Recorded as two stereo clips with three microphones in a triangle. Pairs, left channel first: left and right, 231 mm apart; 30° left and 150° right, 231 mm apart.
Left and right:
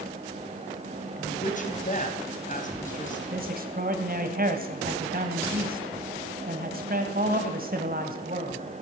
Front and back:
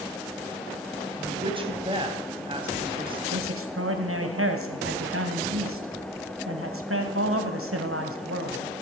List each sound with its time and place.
1.2 s a woman speaking: 145° left, 3 m
3.3 s a man speaking: 140° right, 2 m